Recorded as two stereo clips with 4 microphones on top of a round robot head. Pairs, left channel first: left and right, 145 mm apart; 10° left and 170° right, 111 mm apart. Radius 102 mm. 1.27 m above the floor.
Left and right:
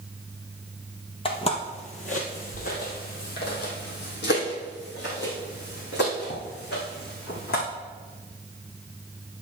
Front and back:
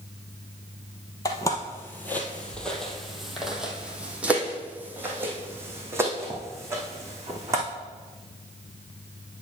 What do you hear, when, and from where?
1.2 s footsteps: 55° left, 1.6 m; by 7.7 s 125° left, 4 m